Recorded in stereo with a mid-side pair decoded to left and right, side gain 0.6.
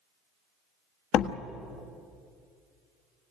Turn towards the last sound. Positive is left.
turn(degrees=65)